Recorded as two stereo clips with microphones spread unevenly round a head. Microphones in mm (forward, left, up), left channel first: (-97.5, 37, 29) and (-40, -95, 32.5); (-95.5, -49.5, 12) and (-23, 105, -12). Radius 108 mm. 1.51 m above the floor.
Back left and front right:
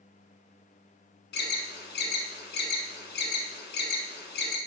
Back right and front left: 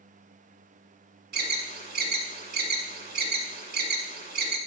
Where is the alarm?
95° left, 1.3 m.